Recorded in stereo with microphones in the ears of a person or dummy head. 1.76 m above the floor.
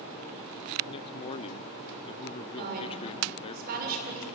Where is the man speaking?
30° left (ahead or behind), 0.7 m.